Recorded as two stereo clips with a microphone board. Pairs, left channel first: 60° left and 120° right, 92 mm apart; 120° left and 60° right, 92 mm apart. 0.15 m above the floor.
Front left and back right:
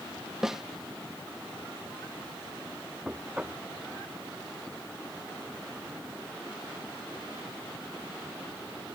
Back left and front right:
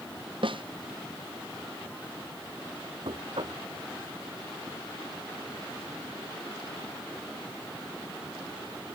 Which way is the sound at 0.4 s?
35° right.